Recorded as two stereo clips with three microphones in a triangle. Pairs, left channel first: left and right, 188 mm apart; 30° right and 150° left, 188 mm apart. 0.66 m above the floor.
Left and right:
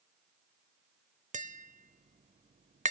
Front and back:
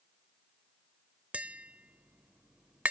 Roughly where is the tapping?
Behind right.